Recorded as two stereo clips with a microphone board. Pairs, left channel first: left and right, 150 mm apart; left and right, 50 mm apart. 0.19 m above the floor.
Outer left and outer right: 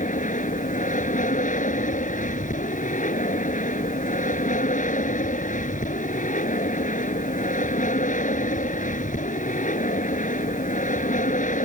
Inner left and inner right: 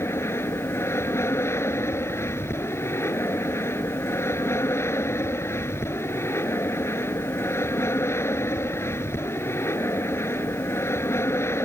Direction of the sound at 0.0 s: 60° left (ahead or behind).